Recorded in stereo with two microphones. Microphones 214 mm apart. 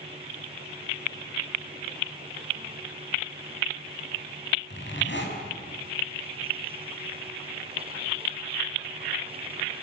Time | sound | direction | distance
4.7 | a zipper | 60° left (ahead or behind) | 6 m